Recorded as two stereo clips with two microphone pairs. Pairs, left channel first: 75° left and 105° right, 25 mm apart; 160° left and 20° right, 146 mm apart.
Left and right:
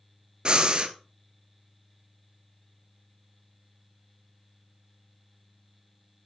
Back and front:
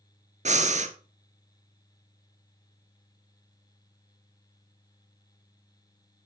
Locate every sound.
0.5 s breathing: 50° right, 0.8 m